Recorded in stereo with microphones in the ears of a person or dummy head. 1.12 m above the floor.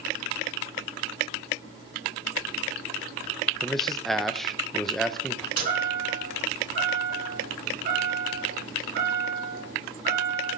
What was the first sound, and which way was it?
A man speaking, centre (ahead or behind).